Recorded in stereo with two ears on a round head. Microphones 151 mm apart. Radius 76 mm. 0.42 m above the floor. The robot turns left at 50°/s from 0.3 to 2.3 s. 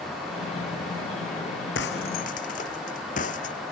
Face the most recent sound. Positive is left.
turn(degrees=50)  # may be behind; listen again after turning